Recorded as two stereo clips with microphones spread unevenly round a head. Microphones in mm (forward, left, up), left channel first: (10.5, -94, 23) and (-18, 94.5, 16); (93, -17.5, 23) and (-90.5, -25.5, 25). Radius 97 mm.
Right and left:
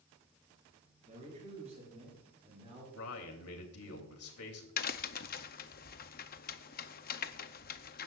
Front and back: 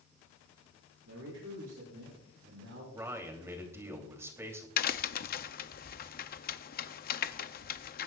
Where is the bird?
No bird in this recording.